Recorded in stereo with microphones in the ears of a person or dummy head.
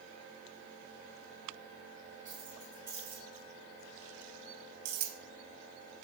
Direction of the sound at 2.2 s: 20° right (ahead or behind).